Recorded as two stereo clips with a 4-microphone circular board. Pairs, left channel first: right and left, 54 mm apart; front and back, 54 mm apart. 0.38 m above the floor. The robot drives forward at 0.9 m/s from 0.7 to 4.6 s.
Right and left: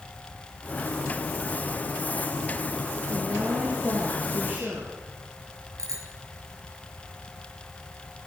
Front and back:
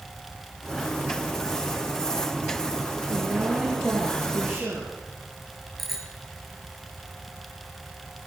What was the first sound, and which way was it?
A woman speaking, 125° left.